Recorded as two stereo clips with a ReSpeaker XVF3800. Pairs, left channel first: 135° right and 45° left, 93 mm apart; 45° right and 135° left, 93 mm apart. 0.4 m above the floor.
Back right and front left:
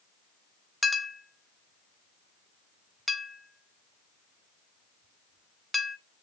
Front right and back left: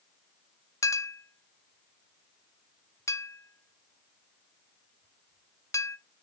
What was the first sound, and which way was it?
A clink, 45° right.